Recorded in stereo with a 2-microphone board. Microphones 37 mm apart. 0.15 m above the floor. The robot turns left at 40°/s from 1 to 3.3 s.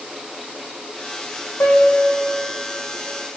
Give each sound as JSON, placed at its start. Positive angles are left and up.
{"t": 1.6, "sound": "a piano", "side_deg": 80, "distance_m": 7.0}